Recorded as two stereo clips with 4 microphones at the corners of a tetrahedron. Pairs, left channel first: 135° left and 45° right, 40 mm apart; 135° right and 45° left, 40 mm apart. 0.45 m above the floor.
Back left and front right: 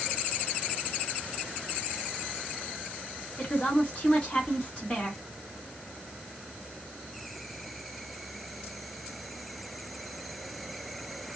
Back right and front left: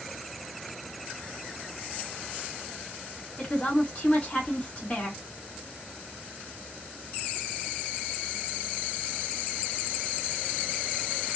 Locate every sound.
3.4 s a woman speaking: straight behind, 1.7 m